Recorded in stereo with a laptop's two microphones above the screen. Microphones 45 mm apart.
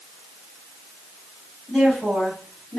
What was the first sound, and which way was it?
A woman speaking, 15° left (ahead or behind).